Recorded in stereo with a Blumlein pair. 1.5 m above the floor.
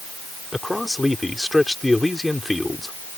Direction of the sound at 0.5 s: 5° left.